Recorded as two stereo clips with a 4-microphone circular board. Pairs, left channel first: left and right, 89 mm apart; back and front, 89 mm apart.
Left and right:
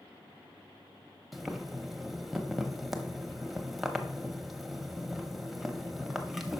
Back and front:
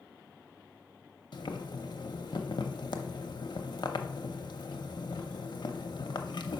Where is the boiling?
175° right, 0.7 m.